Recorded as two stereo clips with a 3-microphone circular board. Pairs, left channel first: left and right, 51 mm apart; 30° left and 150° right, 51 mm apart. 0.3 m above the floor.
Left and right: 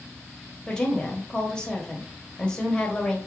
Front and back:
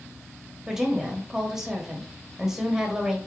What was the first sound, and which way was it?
A woman speaking, 145° left.